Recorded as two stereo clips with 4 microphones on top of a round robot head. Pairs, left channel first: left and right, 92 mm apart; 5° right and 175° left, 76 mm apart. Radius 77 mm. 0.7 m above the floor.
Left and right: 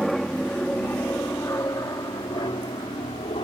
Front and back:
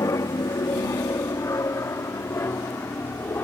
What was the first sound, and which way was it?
An aircraft, straight ahead.